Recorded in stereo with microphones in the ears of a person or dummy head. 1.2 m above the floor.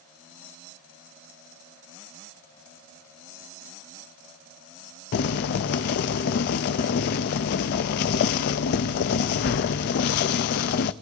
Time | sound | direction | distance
5.1 | boiling | 45° left (ahead or behind) | 0.5 m